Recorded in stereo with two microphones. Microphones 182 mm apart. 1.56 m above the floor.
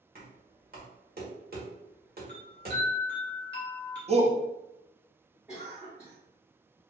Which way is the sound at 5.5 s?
5° right (ahead or behind).